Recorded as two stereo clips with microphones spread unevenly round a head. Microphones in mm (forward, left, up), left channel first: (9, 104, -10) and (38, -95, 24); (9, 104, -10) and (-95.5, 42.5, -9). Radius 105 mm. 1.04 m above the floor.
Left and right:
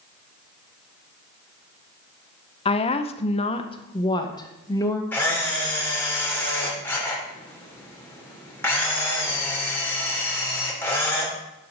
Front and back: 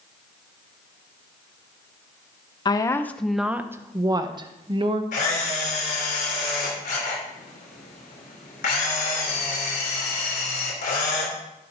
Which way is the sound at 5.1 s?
15° left.